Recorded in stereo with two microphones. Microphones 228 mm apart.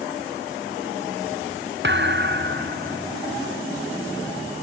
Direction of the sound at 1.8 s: 55° right (ahead or behind).